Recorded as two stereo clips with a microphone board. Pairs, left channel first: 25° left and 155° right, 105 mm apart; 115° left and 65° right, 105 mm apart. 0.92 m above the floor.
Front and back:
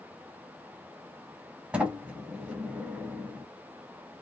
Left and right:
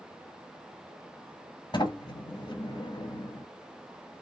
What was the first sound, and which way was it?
A sliding door, 130° left.